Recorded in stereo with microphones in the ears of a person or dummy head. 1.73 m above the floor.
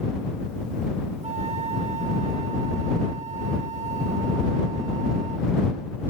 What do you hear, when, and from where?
1.2 s a flute: 30° right (ahead or behind)